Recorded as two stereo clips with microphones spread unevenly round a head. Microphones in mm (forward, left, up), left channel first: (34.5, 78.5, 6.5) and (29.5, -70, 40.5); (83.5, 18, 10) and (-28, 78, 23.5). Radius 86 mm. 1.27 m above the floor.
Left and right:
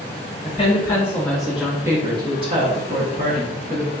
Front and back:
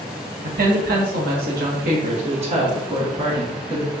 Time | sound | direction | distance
0.4 | a woman speaking | 150° left | 1.4 m